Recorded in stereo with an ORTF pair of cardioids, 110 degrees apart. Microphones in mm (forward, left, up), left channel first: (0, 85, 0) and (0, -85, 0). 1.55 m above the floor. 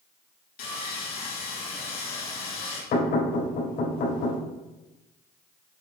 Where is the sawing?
70° left, 2.5 m.